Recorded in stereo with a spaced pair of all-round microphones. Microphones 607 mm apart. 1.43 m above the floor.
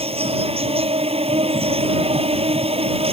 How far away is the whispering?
No whispering in this recording.